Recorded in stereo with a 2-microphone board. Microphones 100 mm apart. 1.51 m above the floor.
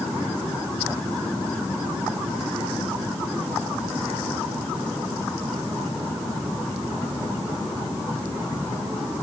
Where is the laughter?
No laughter in this recording.